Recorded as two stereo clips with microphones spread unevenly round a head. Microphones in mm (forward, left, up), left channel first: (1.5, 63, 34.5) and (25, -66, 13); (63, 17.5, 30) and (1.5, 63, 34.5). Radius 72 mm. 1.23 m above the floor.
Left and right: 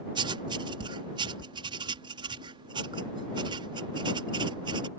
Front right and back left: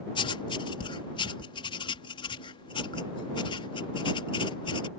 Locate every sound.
0.1 s writing: 25° right